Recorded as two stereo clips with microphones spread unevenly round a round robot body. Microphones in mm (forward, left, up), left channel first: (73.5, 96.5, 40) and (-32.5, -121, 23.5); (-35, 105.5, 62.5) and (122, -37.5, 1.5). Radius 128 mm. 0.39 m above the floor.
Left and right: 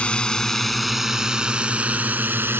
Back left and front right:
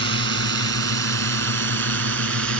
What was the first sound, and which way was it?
A drone, 20° right.